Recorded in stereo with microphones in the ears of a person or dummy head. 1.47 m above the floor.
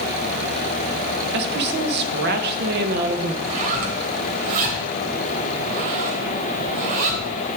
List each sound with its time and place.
1.3 s a woman speaking: 60° right (ahead or behind), 1.4 m
3.4 s a zipper: 45° right (ahead or behind), 3 m